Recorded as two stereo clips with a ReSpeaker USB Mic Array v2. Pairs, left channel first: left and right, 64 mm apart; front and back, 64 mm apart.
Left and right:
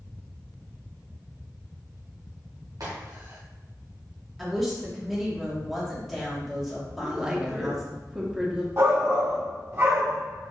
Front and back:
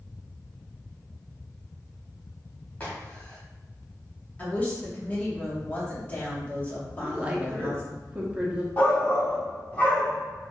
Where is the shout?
60° right, 1.3 m.